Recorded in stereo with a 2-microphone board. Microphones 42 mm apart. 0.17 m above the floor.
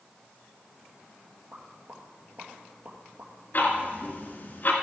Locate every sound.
1.5 s a pop: 55° right (ahead or behind), 2 m
3.5 s ticking: 45° left (ahead or behind), 1.6 m